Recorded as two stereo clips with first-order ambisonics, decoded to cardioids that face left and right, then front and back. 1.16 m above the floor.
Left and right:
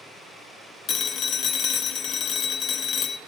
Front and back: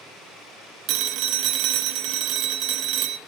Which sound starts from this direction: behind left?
A phone ringing, at 0.9 s.